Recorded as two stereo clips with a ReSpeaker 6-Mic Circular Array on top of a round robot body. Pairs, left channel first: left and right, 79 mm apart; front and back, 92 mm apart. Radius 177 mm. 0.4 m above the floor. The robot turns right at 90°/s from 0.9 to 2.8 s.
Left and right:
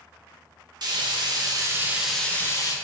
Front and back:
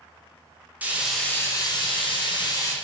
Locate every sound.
0.8 s frying: 110° right, 0.9 m; by 2.7 s 55° left, 0.9 m